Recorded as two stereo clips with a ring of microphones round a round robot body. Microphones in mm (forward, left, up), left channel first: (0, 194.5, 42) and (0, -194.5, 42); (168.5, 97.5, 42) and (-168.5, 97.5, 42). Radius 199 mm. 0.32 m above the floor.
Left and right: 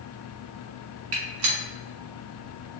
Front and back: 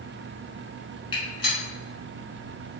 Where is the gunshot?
70° right, 1.0 m.